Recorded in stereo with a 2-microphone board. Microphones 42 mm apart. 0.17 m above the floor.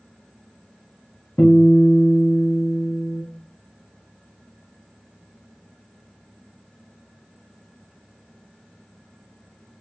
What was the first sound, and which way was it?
A guitar, 65° left (ahead or behind).